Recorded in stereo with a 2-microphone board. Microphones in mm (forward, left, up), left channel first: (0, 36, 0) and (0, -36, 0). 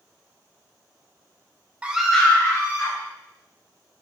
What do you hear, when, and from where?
1.8 s a scream: 20° right (ahead or behind), 0.6 m; by 3.0 s 45° left (ahead or behind), 1.0 m